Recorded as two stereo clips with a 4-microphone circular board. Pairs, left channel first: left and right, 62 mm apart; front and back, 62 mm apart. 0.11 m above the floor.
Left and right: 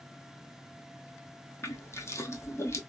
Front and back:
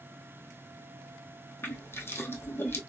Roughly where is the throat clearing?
No throat clearing in this recording.